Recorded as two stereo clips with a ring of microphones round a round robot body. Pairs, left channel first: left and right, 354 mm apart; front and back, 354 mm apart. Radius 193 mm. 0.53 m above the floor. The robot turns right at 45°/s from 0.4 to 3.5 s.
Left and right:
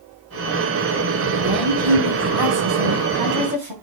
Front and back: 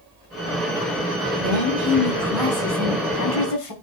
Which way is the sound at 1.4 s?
135° right.